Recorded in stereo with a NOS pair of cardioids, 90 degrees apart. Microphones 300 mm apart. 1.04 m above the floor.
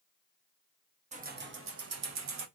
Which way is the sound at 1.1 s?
25° right.